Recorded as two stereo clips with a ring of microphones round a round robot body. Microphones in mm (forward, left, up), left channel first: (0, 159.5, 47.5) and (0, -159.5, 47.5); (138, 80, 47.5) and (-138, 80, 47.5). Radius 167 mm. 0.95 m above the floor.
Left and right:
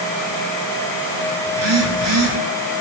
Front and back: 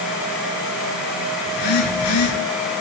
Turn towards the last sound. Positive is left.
turn(degrees=-40)